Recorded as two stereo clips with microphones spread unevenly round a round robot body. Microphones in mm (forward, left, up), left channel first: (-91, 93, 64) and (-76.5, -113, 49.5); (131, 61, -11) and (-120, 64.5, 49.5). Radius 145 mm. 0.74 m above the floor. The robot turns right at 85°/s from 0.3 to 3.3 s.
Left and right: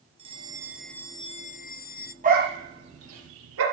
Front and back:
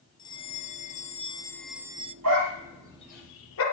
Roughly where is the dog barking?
Behind right.